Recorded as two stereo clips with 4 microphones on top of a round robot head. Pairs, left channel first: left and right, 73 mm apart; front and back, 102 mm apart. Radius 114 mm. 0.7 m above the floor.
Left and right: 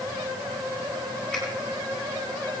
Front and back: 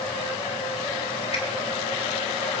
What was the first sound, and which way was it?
A finger snap, 10° left.